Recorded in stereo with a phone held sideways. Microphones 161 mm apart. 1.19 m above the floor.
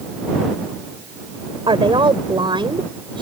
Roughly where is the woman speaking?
Right.